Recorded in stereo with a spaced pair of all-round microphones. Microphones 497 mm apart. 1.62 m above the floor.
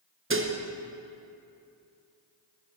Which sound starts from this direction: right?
Dishes clattering, at 0.3 s.